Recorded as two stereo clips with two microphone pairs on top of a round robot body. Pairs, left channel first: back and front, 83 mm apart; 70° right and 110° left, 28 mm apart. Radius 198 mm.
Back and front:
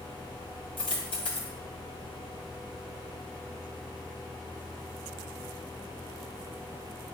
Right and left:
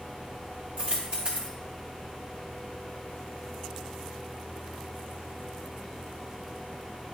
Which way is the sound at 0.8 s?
160° left.